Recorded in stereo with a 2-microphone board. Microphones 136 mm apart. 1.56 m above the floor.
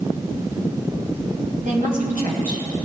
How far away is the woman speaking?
About 5 m.